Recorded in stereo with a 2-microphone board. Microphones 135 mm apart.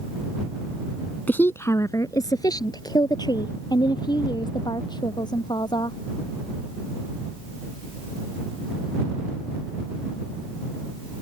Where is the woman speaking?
15° left (ahead or behind); by 6.0 s 35° left (ahead or behind).